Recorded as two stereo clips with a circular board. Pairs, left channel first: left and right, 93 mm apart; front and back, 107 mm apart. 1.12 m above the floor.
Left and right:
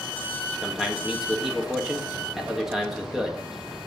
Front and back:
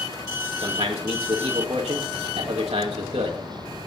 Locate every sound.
0.6 s a man speaking: 175° right, 1.8 m